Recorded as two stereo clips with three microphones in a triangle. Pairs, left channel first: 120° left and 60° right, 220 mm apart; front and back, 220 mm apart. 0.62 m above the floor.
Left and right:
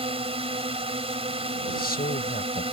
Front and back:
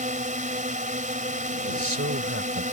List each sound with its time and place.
0.0 s a drone: 125° right
1.7 s a man speaking: 165° left